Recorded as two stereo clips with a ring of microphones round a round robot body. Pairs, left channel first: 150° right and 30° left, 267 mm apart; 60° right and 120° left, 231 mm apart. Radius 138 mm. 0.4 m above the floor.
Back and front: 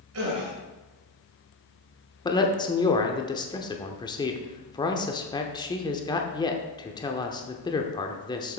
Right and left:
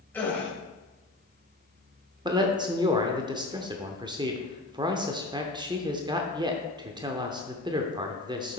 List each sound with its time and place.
0.1 s a gasp: 20° left, 2.5 m
2.2 s a man speaking: 160° left, 0.8 m